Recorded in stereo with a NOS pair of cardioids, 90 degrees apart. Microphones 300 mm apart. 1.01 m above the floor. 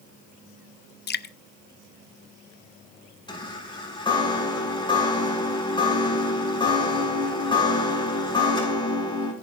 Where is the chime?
15° left, 7 m.